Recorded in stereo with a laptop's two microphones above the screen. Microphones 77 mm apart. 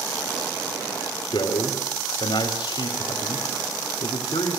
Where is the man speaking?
75° left (ahead or behind), 4 m.